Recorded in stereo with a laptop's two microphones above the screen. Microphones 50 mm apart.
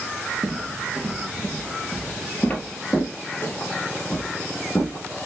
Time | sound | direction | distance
0.4 | footsteps | 15° right (ahead or behind) | 1.0 m